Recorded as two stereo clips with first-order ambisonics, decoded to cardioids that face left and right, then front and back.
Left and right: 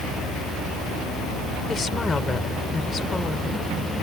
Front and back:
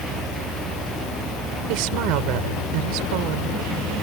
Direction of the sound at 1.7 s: 165° left.